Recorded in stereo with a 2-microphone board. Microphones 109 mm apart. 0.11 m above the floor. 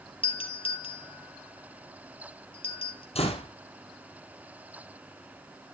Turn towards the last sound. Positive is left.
turn(degrees=65)  # may be behind; listen again after turning